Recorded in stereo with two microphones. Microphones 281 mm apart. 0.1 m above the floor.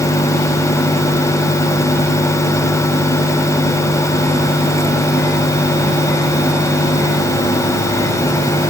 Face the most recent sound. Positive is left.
No sound to turn to.